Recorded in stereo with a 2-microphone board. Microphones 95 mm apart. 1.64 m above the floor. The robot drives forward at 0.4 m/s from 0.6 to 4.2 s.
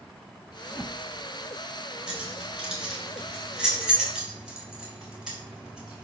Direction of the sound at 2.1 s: 5° right (ahead or behind).